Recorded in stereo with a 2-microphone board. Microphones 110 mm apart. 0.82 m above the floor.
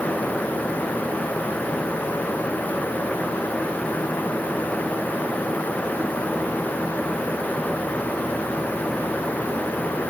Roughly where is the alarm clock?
No alarm clock in this recording.